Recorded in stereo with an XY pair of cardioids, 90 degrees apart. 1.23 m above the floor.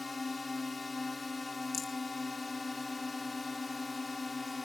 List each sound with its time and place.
0.0 s a drone: 30° left
1.7 s a rattle: 50° left